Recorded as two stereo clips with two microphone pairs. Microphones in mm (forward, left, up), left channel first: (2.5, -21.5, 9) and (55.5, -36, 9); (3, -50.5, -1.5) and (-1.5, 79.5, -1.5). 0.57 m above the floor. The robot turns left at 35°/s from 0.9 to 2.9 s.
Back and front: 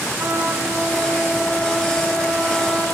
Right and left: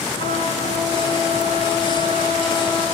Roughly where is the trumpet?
Right.